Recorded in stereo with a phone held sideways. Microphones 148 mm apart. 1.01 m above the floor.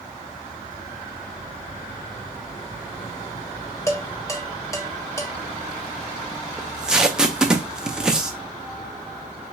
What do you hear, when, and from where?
3.9 s dishes clattering: 20° left (ahead or behind), 1.3 m
6.6 s tape being pulled: 5° right (ahead or behind), 0.5 m